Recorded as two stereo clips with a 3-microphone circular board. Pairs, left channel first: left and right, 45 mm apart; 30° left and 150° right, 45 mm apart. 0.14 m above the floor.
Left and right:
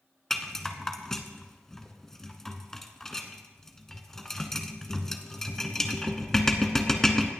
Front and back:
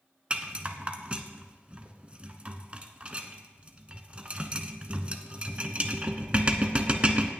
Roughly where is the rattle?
Behind.